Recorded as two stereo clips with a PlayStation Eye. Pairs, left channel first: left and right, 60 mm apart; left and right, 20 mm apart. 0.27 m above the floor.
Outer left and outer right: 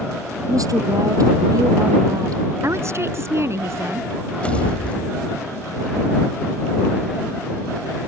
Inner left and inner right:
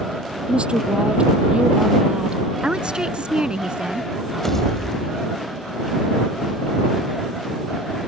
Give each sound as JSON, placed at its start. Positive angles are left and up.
{"t": 0.5, "sound": "a woman speaking", "side_deg": -70}
{"t": 2.6, "sound": "a woman speaking", "side_deg": -50}
{"t": 4.4, "sound": "a pop", "side_deg": 20}